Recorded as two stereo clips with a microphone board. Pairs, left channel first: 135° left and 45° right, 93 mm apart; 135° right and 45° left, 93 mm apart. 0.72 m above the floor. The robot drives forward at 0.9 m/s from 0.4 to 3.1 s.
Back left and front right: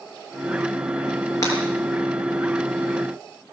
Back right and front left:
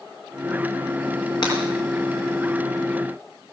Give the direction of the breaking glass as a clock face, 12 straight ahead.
6 o'clock.